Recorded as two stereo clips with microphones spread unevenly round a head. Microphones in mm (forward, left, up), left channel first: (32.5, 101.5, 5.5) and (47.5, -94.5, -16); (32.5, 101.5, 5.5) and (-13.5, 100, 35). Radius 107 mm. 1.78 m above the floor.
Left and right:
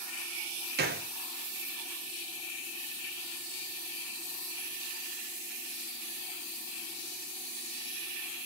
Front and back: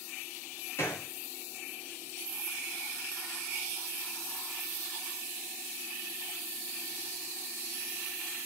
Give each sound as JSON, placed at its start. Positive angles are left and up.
{"t": 0.8, "sound": "a gunshot", "azimuth_deg": -85, "distance_m": 0.6}